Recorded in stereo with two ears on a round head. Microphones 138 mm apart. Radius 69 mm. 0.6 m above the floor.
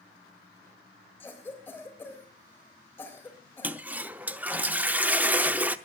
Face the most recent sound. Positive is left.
turn(degrees=-10)  # may be behind; listen again after turning